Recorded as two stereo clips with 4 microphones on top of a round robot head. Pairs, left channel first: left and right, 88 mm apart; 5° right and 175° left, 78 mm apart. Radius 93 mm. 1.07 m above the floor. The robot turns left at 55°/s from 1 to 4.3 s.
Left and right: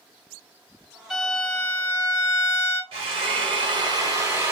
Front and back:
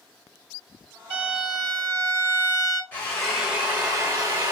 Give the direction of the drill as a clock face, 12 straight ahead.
3 o'clock.